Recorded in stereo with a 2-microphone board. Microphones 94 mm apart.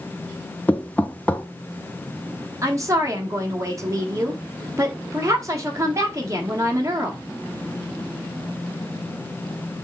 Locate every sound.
0.7 s knocking: 15° left (ahead or behind), 0.5 m
2.6 s a woman speaking: 30° right (ahead or behind), 1.2 m